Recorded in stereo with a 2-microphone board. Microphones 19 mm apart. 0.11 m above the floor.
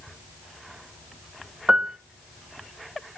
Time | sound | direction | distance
1.7 | a piano | 30° right (ahead or behind) | 0.5 m